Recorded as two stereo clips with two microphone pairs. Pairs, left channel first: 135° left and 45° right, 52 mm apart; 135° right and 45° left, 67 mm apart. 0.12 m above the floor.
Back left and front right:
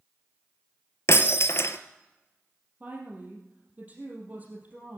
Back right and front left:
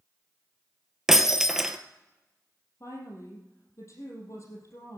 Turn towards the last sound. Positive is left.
turn(degrees=-95)